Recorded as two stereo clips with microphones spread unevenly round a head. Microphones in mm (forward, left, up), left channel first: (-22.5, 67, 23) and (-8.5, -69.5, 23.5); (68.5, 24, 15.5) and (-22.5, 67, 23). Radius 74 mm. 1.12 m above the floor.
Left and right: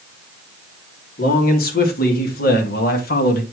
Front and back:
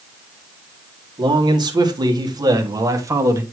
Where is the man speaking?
110° left, 2.5 m; by 3.4 s 90° left, 1.7 m.